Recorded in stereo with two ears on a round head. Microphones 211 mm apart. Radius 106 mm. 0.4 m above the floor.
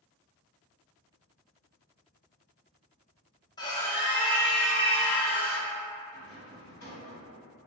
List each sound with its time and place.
3.6 s a scream: 15° left (ahead or behind), 1.1 m; by 5.7 s 65° left (ahead or behind), 1.6 m
6.1 s a rattle: 60° left (ahead or behind), 1.9 m